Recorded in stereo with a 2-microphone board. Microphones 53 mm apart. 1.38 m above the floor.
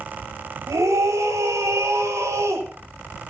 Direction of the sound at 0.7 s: 85° right.